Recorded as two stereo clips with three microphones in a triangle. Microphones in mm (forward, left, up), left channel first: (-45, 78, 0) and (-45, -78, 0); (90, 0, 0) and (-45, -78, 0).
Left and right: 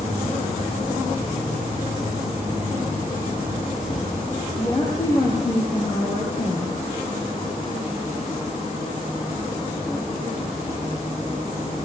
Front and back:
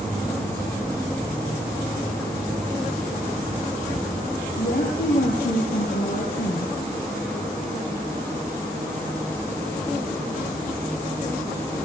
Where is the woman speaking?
20° left, 5 m.